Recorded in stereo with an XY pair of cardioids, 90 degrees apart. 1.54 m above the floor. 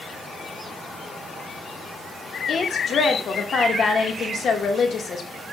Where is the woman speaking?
60° left, 2.5 m.